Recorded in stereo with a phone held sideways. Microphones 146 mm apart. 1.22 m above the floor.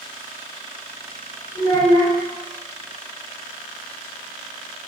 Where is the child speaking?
75° left (ahead or behind), 2.5 m.